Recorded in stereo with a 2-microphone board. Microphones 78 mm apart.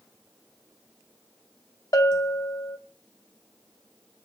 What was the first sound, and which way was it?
A bell, 50° left (ahead or behind).